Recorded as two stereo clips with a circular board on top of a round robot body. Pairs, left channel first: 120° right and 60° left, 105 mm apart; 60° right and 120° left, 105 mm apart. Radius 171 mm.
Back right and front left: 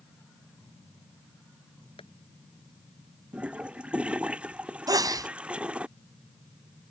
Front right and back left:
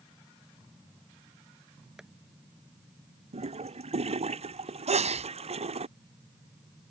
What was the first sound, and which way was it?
Tapping, 155° right.